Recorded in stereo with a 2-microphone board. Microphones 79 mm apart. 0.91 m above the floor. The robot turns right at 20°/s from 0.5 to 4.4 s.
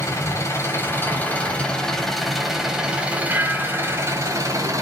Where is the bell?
30° right (ahead or behind), 1.1 m; by 4.5 s 10° right (ahead or behind), 1.1 m.